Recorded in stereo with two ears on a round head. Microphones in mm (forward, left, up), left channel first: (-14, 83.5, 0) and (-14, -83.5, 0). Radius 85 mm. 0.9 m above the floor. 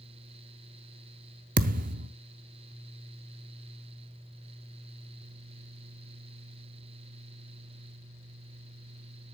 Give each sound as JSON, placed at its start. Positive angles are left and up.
{"t": 1.6, "sound": "a thud", "side_deg": -45, "distance_m": 0.6}